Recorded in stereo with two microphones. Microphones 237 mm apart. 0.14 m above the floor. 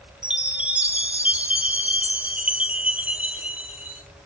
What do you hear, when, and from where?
0.2 s a chime: 5° right (ahead or behind), 0.7 m